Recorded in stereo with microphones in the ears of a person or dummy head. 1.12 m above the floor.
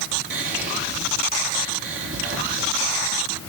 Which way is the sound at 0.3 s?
40° right (ahead or behind).